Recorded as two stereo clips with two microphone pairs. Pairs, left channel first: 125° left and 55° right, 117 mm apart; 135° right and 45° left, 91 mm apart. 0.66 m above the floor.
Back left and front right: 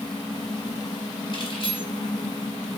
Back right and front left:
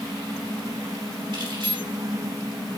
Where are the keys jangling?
75° left, 4 m.